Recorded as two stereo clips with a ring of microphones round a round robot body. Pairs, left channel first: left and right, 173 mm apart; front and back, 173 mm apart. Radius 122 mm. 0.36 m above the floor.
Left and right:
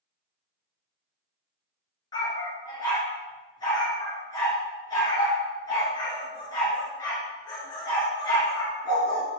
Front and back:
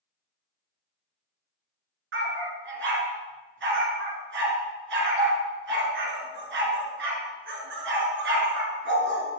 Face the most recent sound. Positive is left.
turn(degrees=165)